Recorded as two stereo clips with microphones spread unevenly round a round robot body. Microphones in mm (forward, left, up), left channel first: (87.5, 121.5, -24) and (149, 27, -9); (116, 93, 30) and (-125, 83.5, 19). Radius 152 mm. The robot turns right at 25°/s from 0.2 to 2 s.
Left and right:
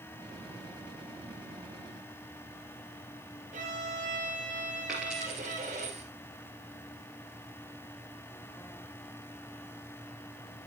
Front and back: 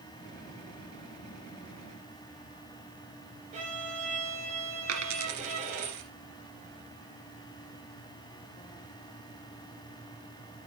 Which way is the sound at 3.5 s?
110° right.